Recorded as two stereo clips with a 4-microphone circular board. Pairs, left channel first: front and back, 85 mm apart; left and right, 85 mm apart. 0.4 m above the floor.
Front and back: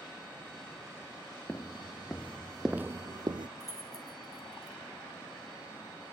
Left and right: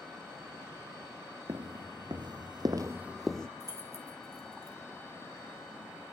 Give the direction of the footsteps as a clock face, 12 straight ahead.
2 o'clock.